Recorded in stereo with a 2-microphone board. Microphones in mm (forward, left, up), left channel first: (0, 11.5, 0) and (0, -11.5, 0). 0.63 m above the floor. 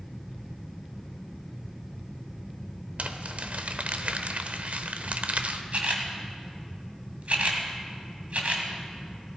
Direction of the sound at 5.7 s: 65° right (ahead or behind).